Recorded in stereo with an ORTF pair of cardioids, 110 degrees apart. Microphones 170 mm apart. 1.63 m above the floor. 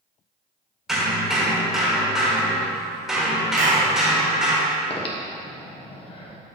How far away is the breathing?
About 1.4 m.